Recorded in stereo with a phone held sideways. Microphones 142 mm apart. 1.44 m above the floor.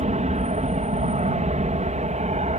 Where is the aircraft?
60° right (ahead or behind).